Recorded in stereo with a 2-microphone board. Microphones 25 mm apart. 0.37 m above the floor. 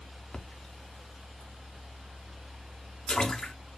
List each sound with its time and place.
0.3 s a splash: 30° left (ahead or behind), 0.5 m